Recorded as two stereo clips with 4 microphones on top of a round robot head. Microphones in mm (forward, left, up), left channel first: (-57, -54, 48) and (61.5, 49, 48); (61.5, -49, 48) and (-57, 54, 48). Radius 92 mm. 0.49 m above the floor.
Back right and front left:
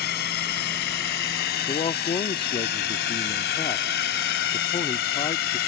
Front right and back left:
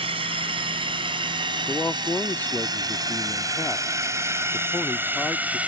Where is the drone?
165° right; by 5.7 s 140° right.